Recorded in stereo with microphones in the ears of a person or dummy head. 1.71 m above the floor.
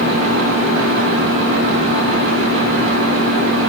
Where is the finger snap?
No finger snap in this recording.